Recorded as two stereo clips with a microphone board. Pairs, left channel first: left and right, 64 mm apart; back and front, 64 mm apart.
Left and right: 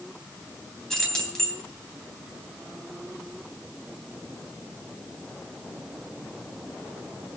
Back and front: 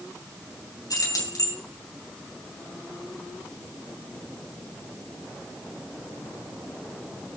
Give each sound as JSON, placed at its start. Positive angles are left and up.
{"t": 0.9, "sound": "keys jangling", "azimuth_deg": 175, "distance_m": 3.0}